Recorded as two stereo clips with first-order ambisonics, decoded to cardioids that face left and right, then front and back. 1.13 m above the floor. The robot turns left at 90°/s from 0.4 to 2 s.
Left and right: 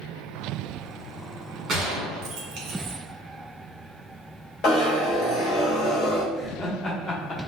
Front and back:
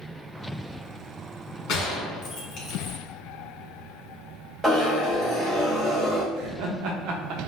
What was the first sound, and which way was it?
A gunshot, 25° right.